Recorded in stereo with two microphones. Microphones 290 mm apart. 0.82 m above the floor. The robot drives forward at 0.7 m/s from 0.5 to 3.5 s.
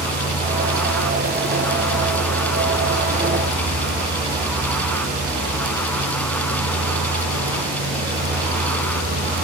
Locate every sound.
0.0 s a vehicle: 85° right